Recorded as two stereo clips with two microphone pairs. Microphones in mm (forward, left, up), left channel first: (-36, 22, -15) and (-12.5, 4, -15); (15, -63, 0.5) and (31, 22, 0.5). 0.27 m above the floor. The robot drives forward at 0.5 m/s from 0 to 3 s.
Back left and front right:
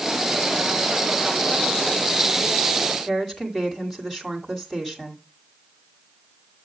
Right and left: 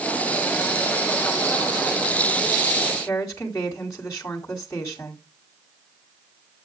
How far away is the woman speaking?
About 2.0 m.